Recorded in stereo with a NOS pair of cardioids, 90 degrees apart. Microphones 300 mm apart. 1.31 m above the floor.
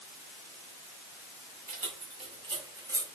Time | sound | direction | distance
1.7 | keys jangling | 30° right | 2.5 m